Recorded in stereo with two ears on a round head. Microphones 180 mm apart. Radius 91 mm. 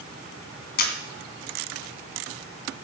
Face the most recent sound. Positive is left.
turn(degrees=50)  # may be behind; listen again after turning